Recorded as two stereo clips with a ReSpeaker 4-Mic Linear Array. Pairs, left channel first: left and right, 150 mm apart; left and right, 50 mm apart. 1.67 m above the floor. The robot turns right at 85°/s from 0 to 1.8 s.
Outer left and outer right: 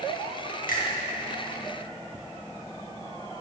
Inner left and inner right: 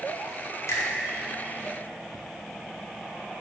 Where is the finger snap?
70° left (ahead or behind), 2 m; by 0.8 s 80° left, 2 m.